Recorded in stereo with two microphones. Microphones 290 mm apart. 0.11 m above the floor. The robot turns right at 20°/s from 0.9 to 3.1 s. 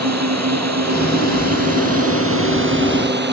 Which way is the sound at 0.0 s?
65° right (ahead or behind).